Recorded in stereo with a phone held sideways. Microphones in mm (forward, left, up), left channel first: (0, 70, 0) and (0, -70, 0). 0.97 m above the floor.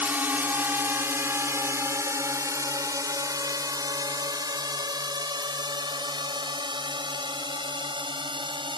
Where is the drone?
15° right (ahead or behind); by 8.8 s 40° right (ahead or behind).